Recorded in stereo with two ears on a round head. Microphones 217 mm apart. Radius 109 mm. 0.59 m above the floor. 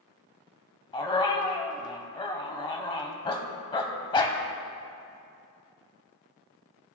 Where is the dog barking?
20° left (ahead or behind), 0.7 m.